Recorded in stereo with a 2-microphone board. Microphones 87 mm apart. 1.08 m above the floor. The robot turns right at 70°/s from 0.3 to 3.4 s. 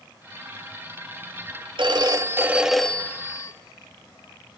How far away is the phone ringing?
About 1.2 m.